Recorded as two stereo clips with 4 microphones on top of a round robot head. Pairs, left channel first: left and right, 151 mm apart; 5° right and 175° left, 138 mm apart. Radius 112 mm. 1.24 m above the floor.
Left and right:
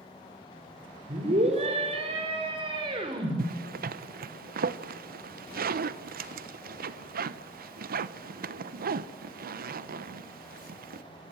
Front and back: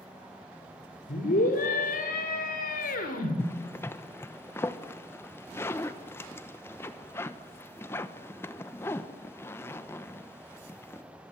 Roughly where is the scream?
Ahead right.